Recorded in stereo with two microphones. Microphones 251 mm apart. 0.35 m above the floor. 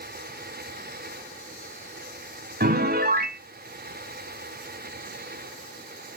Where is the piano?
40° right (ahead or behind), 0.6 m.